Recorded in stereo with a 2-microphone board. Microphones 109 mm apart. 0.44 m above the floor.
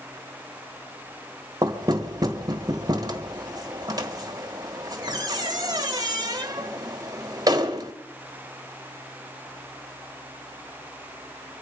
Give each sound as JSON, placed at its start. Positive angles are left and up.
{"t": 1.6, "sound": "knocking", "side_deg": -35, "distance_m": 1.5}